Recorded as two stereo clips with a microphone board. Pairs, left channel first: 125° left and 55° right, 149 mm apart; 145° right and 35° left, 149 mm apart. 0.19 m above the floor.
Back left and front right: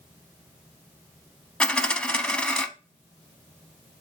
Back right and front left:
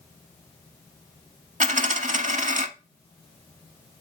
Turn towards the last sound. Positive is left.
turn(degrees=45)